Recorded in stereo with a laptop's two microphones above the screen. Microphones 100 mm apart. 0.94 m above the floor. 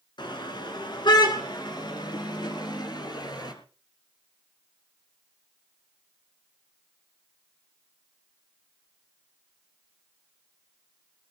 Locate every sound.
0.2 s a car horn: 50° left (ahead or behind), 5 m; by 3.5 s 45° left (ahead or behind), 7 m